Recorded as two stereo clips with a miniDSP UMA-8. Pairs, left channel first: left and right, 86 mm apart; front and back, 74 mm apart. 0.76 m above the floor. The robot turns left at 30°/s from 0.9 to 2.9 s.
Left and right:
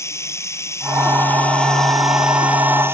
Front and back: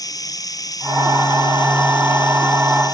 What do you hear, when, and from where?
0.0 s running water: 35° left; by 2.9 s 25° right